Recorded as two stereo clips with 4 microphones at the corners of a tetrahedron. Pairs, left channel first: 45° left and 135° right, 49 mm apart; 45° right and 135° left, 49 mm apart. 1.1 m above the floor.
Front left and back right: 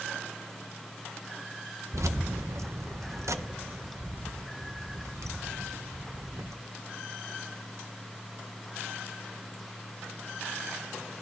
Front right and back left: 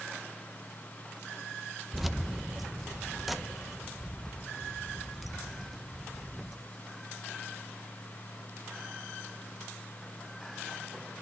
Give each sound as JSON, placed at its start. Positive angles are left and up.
{"t": 1.9, "sound": "keys jangling", "azimuth_deg": -140, "distance_m": 0.5}